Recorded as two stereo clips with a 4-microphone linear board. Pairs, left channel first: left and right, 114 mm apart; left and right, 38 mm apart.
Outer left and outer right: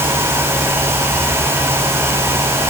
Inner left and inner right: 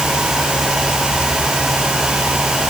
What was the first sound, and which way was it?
Only background noise.